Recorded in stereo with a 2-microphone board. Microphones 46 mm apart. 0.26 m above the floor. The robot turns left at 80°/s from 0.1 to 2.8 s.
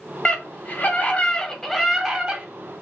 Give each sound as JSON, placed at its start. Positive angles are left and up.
{"t": 0.2, "sound": "a scream", "azimuth_deg": 140, "distance_m": 1.6}